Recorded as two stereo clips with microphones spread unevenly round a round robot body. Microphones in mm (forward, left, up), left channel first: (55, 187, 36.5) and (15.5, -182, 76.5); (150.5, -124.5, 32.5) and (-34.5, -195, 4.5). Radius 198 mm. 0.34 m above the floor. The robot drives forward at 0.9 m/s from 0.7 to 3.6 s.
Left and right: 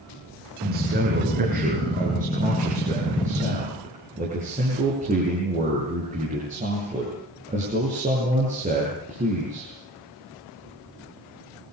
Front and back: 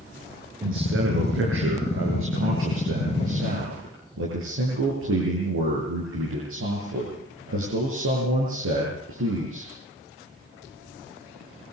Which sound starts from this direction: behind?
A man speaking, at 0.6 s.